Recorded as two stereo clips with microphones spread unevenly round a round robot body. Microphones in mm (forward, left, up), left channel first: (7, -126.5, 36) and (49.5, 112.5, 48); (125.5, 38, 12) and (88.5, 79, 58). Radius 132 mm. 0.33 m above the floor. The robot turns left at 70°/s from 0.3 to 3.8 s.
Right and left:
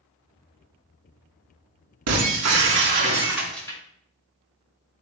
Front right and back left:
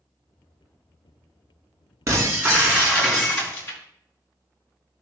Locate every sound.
2.1 s breaking glass: 90° left, 3 m; by 3.8 s 30° right, 3 m